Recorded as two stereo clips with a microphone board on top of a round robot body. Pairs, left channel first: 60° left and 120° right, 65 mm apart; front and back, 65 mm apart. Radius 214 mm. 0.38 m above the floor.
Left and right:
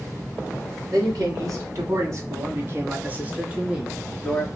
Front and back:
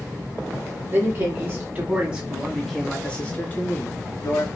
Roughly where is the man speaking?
Behind right.